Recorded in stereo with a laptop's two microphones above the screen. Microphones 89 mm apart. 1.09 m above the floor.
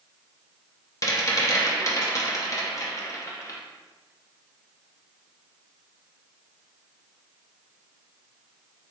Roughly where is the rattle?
Left.